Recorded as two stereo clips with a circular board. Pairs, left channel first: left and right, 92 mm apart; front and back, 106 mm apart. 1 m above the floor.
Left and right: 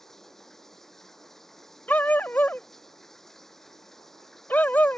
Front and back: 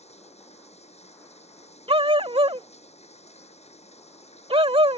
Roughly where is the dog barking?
Behind.